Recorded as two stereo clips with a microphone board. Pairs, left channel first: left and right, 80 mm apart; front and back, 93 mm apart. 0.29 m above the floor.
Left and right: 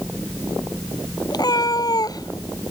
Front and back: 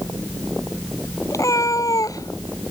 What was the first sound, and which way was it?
A cat meowing, 55° left.